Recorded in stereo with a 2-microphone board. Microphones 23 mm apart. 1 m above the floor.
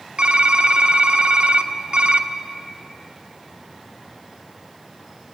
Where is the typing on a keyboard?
60° right (ahead or behind), 0.9 m.